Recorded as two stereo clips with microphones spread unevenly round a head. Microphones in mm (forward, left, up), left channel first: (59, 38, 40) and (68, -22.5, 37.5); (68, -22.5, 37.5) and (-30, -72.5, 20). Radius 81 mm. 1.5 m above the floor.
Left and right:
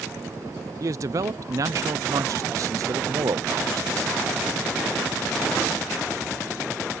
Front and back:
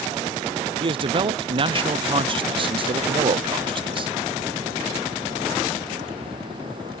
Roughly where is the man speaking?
Behind right.